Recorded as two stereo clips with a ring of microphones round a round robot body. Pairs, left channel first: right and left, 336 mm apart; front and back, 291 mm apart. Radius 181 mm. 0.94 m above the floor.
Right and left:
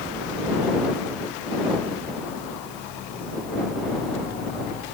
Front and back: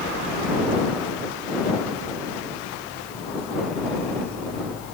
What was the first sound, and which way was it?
Only background noise.